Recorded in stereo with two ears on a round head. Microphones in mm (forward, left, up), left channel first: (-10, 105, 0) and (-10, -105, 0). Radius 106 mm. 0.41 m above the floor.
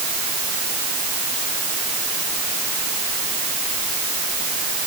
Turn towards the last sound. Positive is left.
No sound to turn to.